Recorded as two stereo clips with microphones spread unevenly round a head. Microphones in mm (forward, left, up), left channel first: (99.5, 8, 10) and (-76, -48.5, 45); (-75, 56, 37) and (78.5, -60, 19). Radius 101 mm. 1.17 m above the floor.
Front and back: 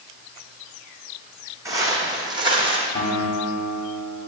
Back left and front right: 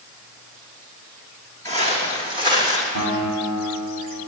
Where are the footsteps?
95° right, 2.5 m; by 2.9 s 115° right, 2 m.